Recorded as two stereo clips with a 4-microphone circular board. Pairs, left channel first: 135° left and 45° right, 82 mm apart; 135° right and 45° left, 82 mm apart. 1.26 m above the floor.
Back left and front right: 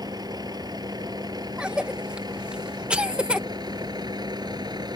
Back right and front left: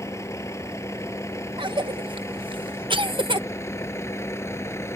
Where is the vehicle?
80° right; by 5.0 s 75° right.